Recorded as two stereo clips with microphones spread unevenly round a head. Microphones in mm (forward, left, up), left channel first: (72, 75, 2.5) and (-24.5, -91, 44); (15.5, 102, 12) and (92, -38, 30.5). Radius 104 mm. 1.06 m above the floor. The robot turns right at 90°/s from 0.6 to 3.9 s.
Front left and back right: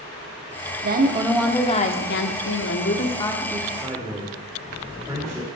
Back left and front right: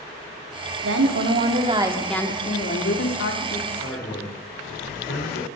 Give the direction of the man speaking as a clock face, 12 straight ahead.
7 o'clock.